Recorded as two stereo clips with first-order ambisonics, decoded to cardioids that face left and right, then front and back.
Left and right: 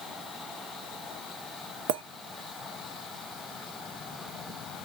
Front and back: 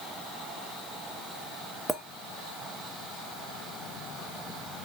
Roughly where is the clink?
Right.